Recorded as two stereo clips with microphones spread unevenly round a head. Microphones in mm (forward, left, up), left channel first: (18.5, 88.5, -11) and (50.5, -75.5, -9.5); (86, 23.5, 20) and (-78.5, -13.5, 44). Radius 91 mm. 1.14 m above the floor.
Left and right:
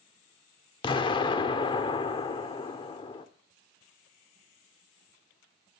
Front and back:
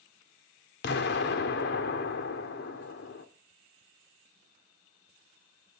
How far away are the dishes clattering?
No dishes clattering in this recording.